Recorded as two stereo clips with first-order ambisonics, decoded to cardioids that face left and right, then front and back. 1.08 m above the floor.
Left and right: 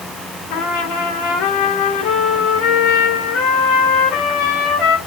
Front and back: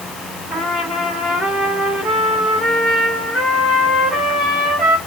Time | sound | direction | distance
0.5 | a trumpet | 100° left | 2.5 m